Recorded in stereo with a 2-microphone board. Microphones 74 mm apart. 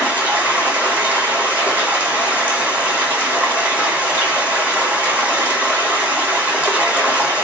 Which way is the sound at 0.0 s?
20° right (ahead or behind).